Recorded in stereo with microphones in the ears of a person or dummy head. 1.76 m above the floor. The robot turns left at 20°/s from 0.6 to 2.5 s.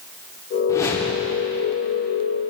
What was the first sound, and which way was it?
A whoosh, 20° left (ahead or behind).